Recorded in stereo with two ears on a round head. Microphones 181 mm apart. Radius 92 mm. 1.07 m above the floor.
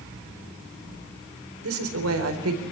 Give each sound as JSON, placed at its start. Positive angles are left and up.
{"t": 1.6, "sound": "a woman speaking", "side_deg": -75, "distance_m": 4.5}